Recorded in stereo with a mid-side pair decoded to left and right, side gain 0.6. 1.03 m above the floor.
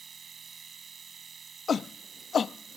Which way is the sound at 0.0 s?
30° right.